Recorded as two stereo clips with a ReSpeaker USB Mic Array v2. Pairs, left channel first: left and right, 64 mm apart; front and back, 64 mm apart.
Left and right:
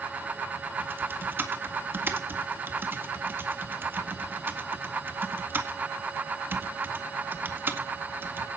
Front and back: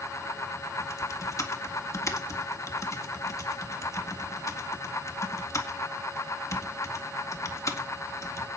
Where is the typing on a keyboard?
35° right, 1.8 m.